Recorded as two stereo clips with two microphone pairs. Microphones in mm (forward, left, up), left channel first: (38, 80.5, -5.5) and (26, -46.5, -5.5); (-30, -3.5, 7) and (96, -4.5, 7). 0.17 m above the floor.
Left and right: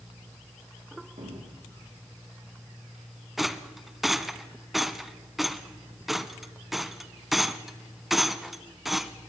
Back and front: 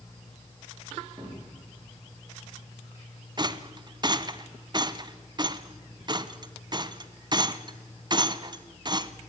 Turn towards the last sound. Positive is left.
turn(degrees=-5)